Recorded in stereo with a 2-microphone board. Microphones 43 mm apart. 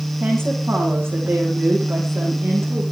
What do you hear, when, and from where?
0.2 s a woman speaking: 65° right (ahead or behind), 7.5 m; by 2.8 s 75° right (ahead or behind), 8 m